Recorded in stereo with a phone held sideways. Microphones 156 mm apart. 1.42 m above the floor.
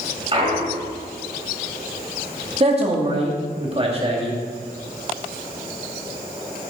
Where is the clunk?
35° right (ahead or behind), 2.5 m.